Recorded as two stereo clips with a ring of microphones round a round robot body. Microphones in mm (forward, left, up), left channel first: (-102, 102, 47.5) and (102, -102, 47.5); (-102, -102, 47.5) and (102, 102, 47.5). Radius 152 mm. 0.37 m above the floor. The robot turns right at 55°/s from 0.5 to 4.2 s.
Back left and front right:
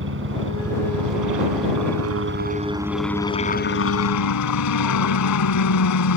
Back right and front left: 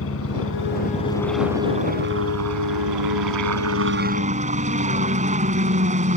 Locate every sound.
0.0 s a helicopter: 95° right; by 6.2 s 110° left